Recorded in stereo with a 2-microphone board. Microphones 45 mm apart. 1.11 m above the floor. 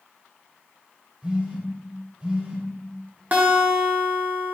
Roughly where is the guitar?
Right.